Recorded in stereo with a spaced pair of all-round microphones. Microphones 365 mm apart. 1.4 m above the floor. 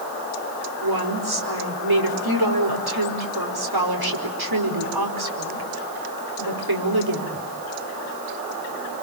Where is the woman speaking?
85° right, 5 m.